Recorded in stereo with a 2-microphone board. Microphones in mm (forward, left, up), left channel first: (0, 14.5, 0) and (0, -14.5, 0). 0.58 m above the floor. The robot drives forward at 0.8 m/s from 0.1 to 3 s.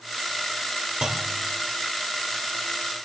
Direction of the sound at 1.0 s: 25° right (ahead or behind).